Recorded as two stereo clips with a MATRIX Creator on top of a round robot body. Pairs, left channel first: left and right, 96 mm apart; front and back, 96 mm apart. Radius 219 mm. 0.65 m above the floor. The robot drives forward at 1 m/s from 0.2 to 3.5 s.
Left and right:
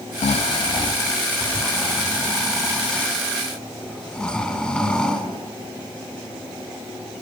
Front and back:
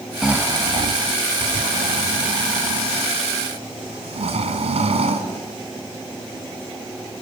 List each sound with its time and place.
0.2 s snoring: 90° left, 0.5 m; by 5.3 s 170° left, 3.5 m